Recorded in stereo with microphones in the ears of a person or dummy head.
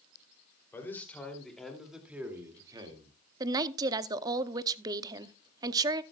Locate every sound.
0.7 s a man speaking: 15° left (ahead or behind), 3 m; by 3.2 s 30° right (ahead or behind), 2 m
3.4 s a woman speaking: 20° right (ahead or behind), 0.7 m